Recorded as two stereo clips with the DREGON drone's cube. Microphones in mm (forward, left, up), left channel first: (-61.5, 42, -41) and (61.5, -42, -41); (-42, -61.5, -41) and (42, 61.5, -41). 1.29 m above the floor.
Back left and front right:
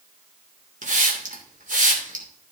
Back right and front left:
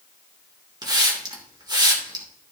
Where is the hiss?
5° right, 2.5 m.